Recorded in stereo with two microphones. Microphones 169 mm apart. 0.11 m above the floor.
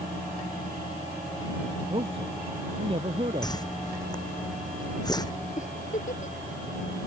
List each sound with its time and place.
1.9 s a man speaking: 35° right (ahead or behind)
3.4 s a whoosh: 25° left (ahead or behind)
5.6 s a giggle: 55° left (ahead or behind)